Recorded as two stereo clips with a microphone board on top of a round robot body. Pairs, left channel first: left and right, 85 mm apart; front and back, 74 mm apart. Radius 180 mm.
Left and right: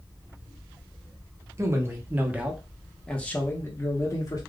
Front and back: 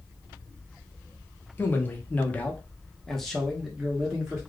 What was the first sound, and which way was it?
A man speaking, 55° right.